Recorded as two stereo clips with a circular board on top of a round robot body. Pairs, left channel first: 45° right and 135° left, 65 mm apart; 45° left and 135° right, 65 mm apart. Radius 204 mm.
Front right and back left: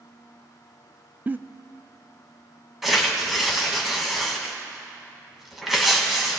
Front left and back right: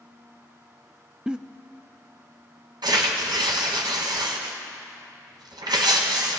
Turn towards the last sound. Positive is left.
turn(degrees=-140)